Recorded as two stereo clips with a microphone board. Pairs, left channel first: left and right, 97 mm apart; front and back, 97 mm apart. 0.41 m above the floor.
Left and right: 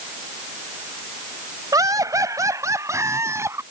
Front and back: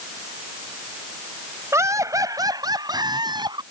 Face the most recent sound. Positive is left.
turn(degrees=-150)